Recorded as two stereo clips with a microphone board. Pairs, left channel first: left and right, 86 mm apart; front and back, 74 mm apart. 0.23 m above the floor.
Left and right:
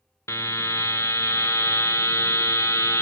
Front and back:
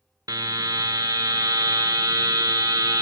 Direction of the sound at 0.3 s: 145° left.